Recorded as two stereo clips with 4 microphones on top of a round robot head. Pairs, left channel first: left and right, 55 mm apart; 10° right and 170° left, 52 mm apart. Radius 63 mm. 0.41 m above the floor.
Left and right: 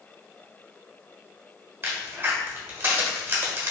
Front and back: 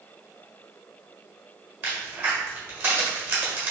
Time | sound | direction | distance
1.8 | a crack | 135° right | 1.4 m